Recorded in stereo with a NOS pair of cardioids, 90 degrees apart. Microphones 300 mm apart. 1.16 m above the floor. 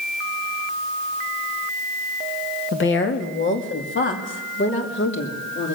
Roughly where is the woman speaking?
Ahead left.